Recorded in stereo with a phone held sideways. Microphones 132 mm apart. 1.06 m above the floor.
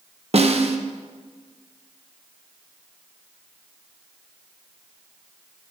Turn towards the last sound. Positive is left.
turn(degrees=-55)  # may be behind; listen again after turning